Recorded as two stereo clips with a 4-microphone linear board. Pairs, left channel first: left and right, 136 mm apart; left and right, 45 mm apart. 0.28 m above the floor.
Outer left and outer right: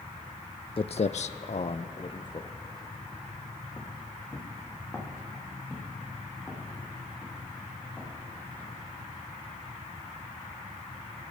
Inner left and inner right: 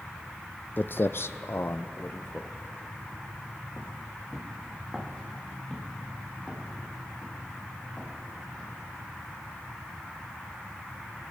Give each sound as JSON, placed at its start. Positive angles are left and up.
{"t": 0.8, "sound": "footsteps", "side_deg": 45, "distance_m": 0.5}